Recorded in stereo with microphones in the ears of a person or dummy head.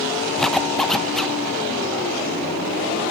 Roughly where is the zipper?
Centre.